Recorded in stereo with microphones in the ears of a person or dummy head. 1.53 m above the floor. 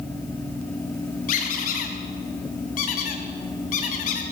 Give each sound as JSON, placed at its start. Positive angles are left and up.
{"t": 1.3, "sound": "a squeak", "side_deg": 35, "distance_m": 1.2}